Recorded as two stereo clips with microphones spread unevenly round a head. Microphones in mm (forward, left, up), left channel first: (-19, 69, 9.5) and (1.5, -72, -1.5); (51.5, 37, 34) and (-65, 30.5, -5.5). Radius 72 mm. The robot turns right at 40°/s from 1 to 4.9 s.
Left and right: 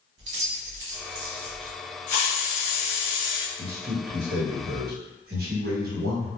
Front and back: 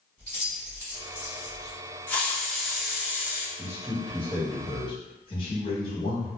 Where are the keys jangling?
75° right, 0.8 m; by 1.8 s 45° right, 0.8 m.